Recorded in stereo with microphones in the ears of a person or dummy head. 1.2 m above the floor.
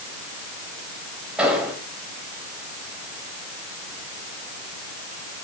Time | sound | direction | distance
1.4 | an explosion | centre (ahead or behind) | 4.5 m